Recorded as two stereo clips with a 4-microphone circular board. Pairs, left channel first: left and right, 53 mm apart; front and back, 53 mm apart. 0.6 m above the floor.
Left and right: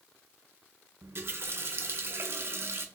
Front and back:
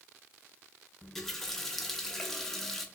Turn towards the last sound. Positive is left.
turn(degrees=-80)